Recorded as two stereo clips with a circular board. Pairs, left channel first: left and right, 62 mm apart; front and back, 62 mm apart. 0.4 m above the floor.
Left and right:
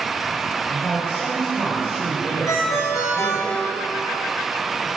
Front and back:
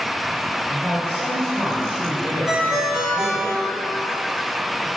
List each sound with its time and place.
0.7 s a man speaking: 145° left, 1.8 m
2.5 s a ringtone: 105° left, 1.7 m